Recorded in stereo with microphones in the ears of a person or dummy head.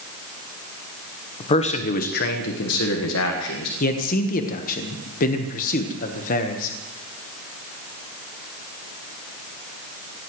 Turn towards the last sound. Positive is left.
turn(degrees=55)  # may be behind; listen again after turning